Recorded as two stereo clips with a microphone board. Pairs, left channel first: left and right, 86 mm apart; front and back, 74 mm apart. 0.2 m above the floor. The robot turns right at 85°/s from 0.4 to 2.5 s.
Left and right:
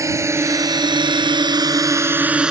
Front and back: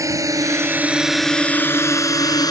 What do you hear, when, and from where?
0.0 s a drone: 140° right; by 2.5 s 10° right